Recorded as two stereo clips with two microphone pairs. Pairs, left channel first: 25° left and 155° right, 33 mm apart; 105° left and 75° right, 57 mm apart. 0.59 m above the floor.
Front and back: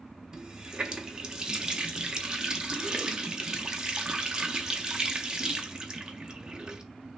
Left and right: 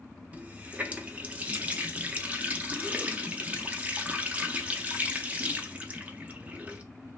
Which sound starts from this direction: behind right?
A running tap, at 0.3 s.